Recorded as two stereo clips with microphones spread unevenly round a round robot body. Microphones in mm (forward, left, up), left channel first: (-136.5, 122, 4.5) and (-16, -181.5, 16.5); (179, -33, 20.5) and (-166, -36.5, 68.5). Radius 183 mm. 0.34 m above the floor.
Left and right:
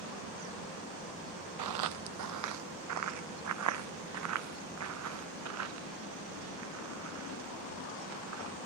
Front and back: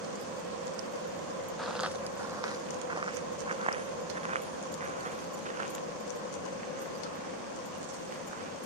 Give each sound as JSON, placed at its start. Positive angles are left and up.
{"t": 1.6, "sound": "footsteps", "azimuth_deg": -90}